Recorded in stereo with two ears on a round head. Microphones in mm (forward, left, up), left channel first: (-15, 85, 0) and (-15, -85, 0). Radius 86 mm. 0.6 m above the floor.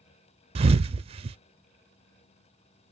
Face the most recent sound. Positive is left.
turn(degrees=-30)  # may be behind; listen again after turning